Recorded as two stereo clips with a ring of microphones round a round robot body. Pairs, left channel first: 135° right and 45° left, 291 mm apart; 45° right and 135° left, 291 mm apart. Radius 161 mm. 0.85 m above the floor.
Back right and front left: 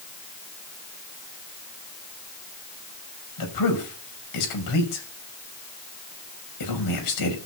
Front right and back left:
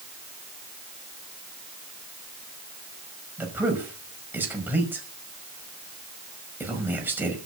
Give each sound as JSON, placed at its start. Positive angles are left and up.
{"t": 3.4, "sound": "a man speaking", "azimuth_deg": -140, "distance_m": 5.5}